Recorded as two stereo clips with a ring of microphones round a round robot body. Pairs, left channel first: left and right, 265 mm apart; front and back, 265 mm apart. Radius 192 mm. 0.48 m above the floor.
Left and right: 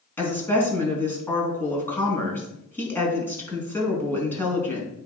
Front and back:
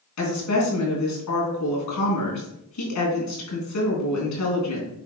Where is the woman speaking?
10° left, 4.5 m.